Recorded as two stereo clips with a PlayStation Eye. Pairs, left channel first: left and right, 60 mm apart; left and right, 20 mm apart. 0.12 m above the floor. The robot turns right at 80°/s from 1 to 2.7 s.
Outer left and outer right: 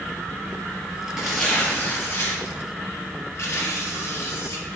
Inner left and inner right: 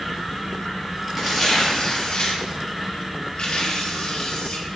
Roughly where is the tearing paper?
Ahead.